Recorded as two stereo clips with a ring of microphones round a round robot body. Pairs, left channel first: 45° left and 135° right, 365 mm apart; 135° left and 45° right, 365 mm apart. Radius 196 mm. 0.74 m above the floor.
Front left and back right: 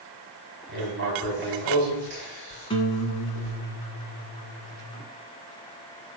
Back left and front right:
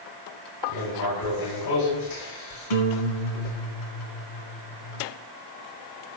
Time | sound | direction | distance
0.7 | writing | 165° left | 6 m
2.7 | a guitar | 120° left | 1.7 m